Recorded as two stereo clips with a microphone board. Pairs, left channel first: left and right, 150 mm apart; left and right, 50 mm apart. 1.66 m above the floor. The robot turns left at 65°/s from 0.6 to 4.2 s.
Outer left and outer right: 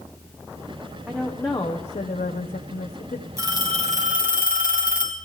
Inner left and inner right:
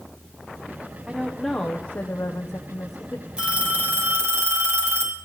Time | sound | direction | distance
1.1 | a woman speaking | 175° right | 1.0 m
3.4 | a phone ringing | 20° right | 2.5 m